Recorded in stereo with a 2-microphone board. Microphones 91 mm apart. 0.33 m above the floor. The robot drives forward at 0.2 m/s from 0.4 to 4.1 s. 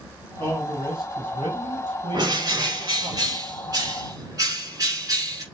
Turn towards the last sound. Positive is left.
turn(degrees=-40)  # may be behind; listen again after turning